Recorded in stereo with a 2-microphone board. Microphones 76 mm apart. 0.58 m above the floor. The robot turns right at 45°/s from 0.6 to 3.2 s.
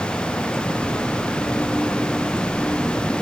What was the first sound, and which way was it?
Only background noise.